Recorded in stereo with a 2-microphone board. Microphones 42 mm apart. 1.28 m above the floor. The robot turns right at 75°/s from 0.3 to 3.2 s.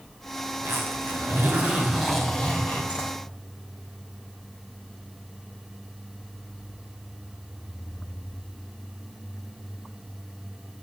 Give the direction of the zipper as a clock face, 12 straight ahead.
4 o'clock.